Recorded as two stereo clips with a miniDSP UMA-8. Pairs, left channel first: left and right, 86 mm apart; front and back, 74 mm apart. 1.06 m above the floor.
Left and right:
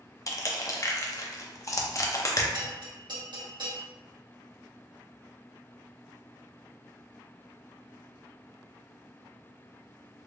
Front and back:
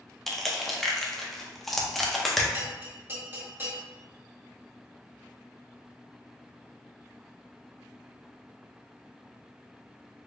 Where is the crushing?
85° left, 0.5 m.